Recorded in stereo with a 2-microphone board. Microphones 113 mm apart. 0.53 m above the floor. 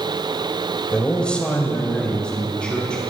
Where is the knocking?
I don't hear knocking.